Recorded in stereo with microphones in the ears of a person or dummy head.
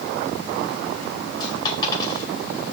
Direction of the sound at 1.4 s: 30° left (ahead or behind).